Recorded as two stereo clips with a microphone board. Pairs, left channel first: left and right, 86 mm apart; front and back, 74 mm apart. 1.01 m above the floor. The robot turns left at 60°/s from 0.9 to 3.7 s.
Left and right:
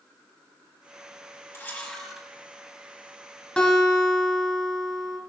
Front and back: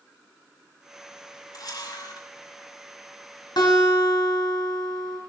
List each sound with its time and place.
1.5 s a camera shutter: 35° left, 6.5 m; by 2.3 s 10° right, 6.5 m
3.6 s a guitar: 10° left, 5 m; by 5.2 s 5° left, 5 m